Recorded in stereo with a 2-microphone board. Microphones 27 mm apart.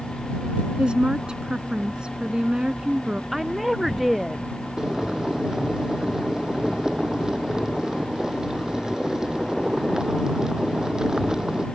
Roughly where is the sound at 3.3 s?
Centre.